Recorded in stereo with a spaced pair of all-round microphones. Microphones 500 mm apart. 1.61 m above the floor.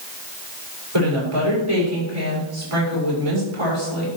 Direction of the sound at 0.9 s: 90° right.